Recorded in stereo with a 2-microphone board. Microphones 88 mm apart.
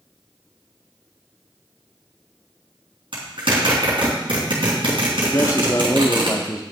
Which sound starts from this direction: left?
A man speaking, at 5.3 s.